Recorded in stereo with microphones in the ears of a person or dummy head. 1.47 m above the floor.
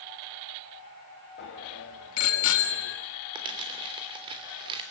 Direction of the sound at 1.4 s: 55° left (ahead or behind).